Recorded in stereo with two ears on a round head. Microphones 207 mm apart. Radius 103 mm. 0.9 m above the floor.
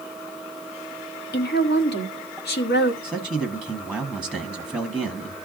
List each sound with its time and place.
1.3 s a woman speaking: 45° left (ahead or behind), 1.6 m
3.0 s a man speaking: 10° left (ahead or behind), 1.6 m